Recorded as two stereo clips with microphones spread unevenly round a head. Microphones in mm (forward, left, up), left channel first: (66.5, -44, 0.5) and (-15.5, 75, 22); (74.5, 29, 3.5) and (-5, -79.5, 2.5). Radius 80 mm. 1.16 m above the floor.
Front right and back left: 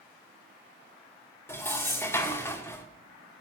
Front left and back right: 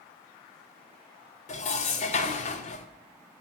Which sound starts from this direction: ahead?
Dishes clattering, at 1.5 s.